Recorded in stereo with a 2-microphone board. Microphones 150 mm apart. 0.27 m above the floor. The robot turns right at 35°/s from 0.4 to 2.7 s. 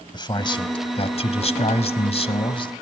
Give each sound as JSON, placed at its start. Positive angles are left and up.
{"t": 0.1, "sound": "a man speaking", "azimuth_deg": 45, "distance_m": 1.4}